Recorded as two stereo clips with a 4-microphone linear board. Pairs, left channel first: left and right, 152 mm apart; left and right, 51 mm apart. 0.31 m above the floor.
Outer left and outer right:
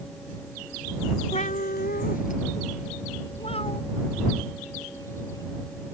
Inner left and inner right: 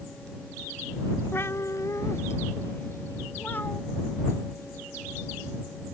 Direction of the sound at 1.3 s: 45° left (ahead or behind).